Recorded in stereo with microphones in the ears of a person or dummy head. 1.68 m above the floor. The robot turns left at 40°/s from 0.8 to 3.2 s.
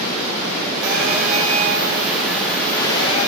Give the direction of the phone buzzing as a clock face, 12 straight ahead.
4 o'clock.